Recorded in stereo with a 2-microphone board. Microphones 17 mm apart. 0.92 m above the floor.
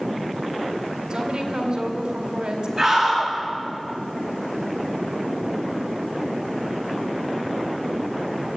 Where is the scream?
20° right (ahead or behind), 9.5 m.